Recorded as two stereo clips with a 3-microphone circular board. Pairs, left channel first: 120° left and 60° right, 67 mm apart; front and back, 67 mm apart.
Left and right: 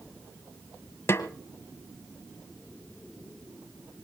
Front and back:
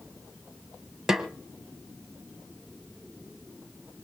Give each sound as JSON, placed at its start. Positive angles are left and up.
{"t": 1.1, "sound": "a snare drum", "azimuth_deg": 100, "distance_m": 1.3}